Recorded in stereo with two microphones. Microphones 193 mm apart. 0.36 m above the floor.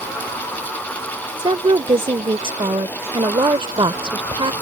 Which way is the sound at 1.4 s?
25° right (ahead or behind).